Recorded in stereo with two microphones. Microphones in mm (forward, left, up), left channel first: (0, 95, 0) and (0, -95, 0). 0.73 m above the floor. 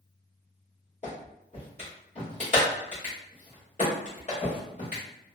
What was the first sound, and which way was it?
A clap, 35° left (ahead or behind).